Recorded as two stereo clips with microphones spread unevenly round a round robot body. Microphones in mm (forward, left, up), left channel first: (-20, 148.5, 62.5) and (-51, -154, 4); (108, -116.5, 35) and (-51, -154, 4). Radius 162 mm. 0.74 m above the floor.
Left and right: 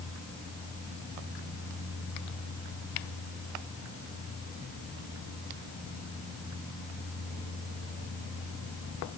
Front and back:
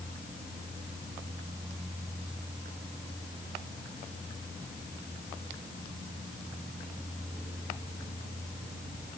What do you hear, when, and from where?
Only background noise.